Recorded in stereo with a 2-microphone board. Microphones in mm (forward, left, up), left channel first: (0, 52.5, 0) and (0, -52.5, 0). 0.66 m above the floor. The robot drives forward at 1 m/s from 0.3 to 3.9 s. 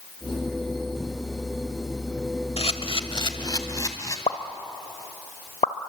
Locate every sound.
2.6 s a camera shutter: 75° left (ahead or behind), 1.1 m; by 4.2 s 35° left (ahead or behind), 2.0 m
4.3 s a pop: 90° left, 1.2 m